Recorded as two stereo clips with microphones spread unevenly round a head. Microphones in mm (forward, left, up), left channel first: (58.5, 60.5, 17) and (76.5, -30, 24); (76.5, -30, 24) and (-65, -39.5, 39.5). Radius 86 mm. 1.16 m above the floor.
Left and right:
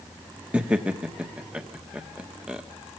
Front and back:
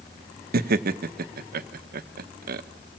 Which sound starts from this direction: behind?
Laughter, at 0.5 s.